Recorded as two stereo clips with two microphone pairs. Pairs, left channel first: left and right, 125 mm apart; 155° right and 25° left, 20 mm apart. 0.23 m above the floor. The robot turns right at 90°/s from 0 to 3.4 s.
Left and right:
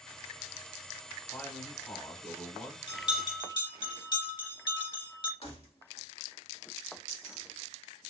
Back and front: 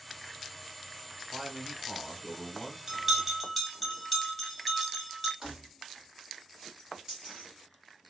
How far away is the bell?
About 1.0 m.